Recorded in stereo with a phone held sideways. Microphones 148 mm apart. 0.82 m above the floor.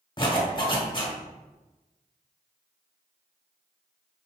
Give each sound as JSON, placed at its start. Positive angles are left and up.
{"t": 0.2, "sound": "a zipper", "side_deg": 30, "distance_m": 1.2}